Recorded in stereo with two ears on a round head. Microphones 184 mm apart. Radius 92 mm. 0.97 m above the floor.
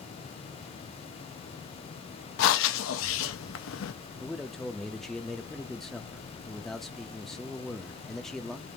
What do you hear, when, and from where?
2.4 s breathing: 65° left (ahead or behind), 0.6 m
4.2 s a man speaking: centre (ahead or behind), 0.7 m